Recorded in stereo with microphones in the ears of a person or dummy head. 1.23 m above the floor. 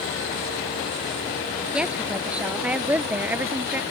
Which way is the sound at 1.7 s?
5° right (ahead or behind).